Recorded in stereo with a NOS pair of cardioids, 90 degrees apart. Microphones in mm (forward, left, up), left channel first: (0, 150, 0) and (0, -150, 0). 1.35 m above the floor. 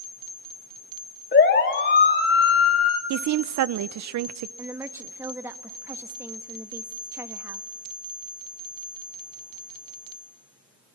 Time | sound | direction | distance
1.3 | a siren | 35° left | 3 m
3.1 | a woman speaking | 60° right | 0.7 m
4.6 | a woman speaking | 10° right | 1.5 m